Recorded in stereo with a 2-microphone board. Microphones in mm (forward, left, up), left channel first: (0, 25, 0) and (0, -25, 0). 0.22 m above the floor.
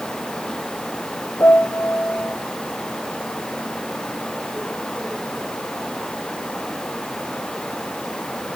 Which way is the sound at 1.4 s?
55° left (ahead or behind).